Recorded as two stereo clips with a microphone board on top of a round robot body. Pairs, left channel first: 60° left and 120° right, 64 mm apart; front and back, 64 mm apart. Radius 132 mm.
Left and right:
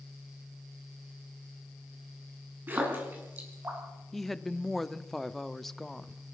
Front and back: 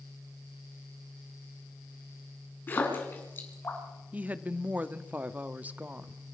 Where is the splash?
60° right, 6 m.